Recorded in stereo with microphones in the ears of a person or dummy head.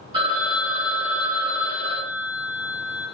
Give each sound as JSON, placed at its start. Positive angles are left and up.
{"t": 0.1, "sound": "a phone ringing", "side_deg": -20, "distance_m": 1.1}